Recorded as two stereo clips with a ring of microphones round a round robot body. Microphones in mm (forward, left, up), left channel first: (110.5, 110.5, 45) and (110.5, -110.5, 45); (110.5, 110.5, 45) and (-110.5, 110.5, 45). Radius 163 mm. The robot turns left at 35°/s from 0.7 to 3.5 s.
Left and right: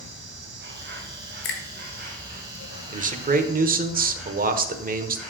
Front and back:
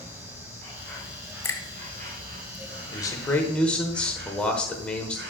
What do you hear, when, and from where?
0.0 s an insect: 85° right, 3 m; by 5.3 s straight behind, 3 m
1.4 s a finger snap: 75° left, 2 m; by 1.6 s 70° left, 2 m
2.9 s a man speaking: 60° right, 1.1 m; by 5.2 s 85° right, 1.1 m